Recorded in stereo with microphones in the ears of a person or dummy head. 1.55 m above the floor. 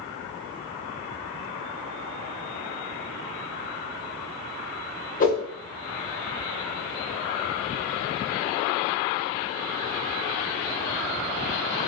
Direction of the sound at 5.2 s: 45° left (ahead or behind).